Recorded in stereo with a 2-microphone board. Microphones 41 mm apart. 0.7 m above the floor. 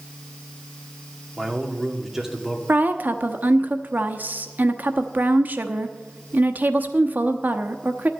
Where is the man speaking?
10° right (ahead or behind), 1.9 m.